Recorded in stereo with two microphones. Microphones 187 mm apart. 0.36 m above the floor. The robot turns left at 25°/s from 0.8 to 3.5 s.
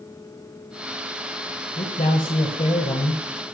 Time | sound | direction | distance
1.8 | a man speaking | 80° left | 1.4 m